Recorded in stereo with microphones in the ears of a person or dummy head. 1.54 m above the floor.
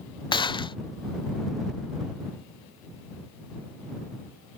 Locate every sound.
0.3 s a gunshot: 25° left (ahead or behind)